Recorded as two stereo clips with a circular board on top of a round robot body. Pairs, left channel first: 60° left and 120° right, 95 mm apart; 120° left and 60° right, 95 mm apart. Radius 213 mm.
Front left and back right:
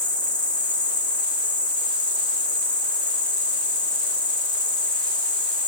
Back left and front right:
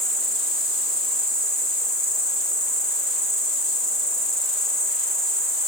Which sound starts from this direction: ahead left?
An insect, at 0.0 s.